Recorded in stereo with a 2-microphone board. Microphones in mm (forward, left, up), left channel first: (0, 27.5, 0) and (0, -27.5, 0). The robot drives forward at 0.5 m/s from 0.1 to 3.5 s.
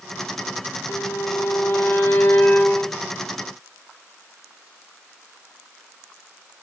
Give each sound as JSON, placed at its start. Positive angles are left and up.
{"t": 0.9, "sound": "a violin", "side_deg": 80, "distance_m": 0.6}